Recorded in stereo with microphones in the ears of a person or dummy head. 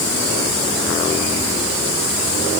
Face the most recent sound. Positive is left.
No sound to turn to.